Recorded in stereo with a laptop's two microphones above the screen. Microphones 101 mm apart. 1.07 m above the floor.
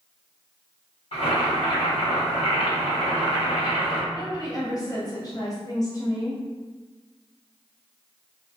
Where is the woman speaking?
35° left (ahead or behind), 1.2 m.